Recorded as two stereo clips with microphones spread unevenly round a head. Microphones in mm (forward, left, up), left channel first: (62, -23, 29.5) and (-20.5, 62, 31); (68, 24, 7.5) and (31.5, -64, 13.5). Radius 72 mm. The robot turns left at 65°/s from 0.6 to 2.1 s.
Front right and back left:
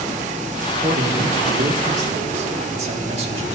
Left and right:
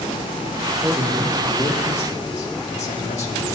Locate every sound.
0.7 s a man speaking: 170° right, 1.9 m; by 3.6 s 100° left, 1.9 m